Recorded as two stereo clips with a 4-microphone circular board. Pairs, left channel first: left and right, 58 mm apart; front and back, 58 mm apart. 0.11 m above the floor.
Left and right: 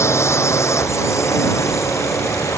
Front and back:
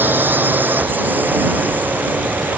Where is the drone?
125° left; by 2.6 s 120° left.